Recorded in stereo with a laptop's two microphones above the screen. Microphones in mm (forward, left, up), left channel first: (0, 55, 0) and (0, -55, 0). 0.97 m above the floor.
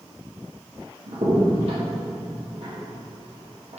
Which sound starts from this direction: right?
A crack, at 1.1 s.